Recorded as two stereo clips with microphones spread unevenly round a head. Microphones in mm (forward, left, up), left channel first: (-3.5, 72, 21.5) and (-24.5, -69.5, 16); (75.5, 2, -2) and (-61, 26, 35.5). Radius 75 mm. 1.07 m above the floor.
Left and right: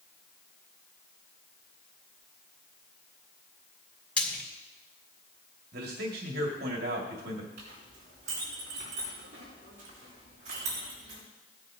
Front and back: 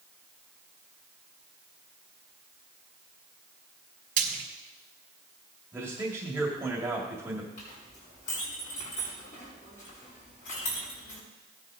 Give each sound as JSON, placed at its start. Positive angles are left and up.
{"t": 4.2, "sound": "frying", "azimuth_deg": 160, "distance_m": 2.5}
{"t": 5.7, "sound": "a man speaking", "azimuth_deg": -115, "distance_m": 2.0}
{"t": 7.6, "sound": "a clink", "azimuth_deg": -55, "distance_m": 6.5}